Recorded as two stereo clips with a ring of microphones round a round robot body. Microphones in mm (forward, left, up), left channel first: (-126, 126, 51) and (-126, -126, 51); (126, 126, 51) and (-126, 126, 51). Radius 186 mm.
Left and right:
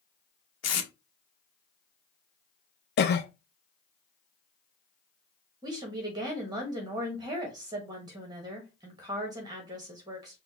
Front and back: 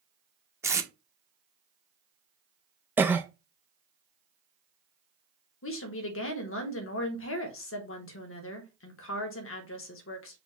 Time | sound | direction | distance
0.6 | tape being pulled | 100° left | 0.9 m
3.0 | a cough | 100° left | 0.6 m
5.6 | a woman speaking | 15° right | 1.0 m